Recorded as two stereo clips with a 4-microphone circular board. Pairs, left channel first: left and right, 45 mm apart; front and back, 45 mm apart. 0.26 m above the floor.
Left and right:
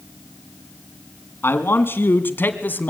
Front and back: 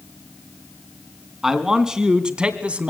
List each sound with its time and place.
1.4 s a man speaking: 100° left, 2.5 m; by 2.9 s 125° left, 1.9 m